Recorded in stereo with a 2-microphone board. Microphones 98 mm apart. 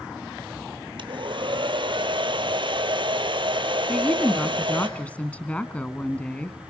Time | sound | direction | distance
1.0 | a hair dryer | 60° right (ahead or behind) | 1.6 m
3.9 | a woman speaking | 15° left (ahead or behind) | 1.3 m